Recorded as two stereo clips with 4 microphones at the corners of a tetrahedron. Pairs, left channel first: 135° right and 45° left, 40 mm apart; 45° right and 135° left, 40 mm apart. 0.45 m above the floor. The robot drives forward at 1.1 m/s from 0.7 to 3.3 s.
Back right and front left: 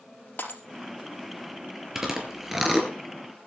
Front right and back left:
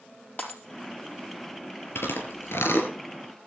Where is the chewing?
35° right, 4 m; by 2.9 s 45° right, 3.5 m.